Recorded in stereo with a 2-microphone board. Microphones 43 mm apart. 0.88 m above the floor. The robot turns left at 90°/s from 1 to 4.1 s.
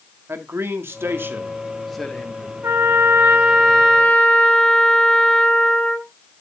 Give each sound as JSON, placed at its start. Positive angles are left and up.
{"t": 0.3, "sound": "a man speaking", "azimuth_deg": -100, "distance_m": 1.7}
{"t": 2.6, "sound": "a trumpet", "azimuth_deg": -80, "distance_m": 3.5}